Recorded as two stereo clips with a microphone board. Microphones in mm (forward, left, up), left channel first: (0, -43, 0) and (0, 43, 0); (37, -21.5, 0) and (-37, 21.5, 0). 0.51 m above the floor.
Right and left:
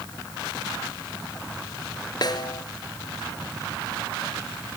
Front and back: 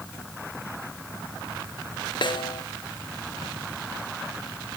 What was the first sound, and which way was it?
A snare drum, 50° right.